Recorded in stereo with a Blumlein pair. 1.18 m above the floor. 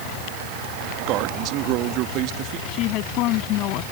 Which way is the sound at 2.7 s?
40° left.